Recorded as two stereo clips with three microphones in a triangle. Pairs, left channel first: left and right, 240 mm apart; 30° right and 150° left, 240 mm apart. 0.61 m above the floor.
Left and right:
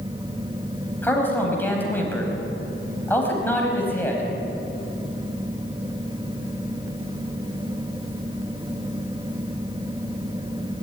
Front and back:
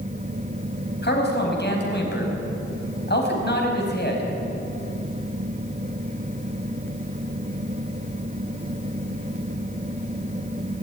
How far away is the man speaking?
About 5 m.